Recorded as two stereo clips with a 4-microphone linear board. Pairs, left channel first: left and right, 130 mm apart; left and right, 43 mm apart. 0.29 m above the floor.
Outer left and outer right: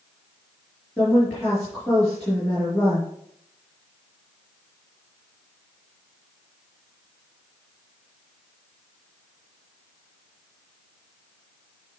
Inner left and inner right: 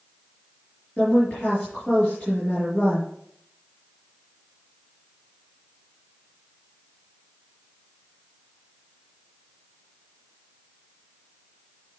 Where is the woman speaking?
10° left (ahead or behind), 4 m.